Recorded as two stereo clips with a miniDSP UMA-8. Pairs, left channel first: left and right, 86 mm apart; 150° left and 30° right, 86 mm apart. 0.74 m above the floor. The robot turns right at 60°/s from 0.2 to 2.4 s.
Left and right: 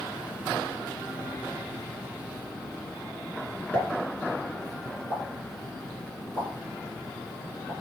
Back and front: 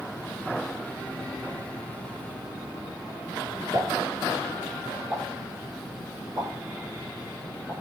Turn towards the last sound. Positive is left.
turn(degrees=15)